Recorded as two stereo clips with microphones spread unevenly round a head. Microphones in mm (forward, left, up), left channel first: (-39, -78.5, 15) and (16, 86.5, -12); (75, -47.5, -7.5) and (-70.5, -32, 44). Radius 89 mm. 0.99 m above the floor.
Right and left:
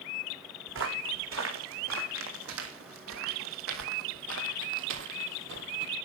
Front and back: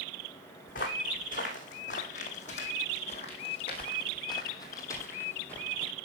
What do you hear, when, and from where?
0.7 s footsteps: 45° left, 3.5 m; by 5.9 s 95° left, 1.7 m